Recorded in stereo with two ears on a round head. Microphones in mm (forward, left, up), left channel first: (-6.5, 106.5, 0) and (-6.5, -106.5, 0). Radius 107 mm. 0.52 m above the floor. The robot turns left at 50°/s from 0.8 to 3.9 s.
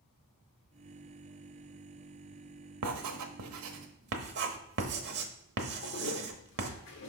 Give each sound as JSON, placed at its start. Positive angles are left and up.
{"t": 2.8, "sound": "writing", "side_deg": -75, "distance_m": 1.0}
{"t": 5.8, "sound": "a toilet flushing", "side_deg": 50, "distance_m": 1.1}